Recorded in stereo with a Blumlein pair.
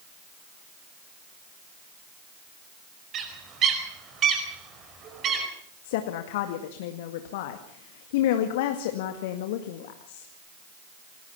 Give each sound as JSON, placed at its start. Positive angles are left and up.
{"t": 3.1, "sound": "a bird", "azimuth_deg": -30, "distance_m": 5.0}
{"t": 5.8, "sound": "a woman speaking", "azimuth_deg": 50, "distance_m": 2.0}